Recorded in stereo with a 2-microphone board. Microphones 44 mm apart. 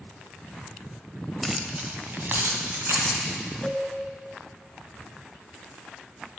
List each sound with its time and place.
1.4 s keys jangling: 5° right (ahead or behind), 0.8 m; by 3.3 s 70° right (ahead or behind), 2.5 m
3.6 s a cowbell: 10° left (ahead or behind), 1.7 m